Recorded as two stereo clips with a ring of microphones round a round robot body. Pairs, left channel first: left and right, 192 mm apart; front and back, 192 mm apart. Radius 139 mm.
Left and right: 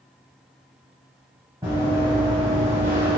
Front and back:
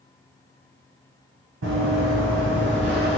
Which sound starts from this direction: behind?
Running footsteps, at 1.6 s.